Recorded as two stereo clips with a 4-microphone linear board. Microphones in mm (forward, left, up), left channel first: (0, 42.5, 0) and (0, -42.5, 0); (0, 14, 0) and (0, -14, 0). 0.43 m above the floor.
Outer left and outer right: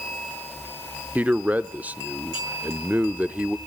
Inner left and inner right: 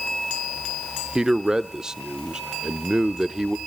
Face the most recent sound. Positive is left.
turn(degrees=-20)  # may be behind; listen again after turning